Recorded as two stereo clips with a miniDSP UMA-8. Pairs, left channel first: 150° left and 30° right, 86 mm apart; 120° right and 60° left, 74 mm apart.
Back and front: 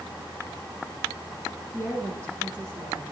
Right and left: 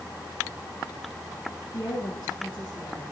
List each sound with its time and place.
1.7 s a woman speaking: 105° right, 5 m